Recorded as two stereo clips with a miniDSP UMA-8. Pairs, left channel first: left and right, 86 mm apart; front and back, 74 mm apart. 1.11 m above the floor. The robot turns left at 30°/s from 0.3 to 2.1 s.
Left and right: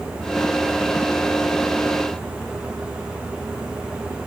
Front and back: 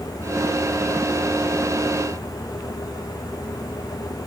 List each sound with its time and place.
Only background noise.